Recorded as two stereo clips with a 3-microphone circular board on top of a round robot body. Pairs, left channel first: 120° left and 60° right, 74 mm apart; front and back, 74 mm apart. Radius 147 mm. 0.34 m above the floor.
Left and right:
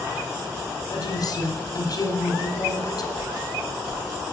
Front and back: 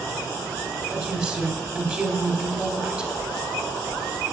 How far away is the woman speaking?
About 2 m.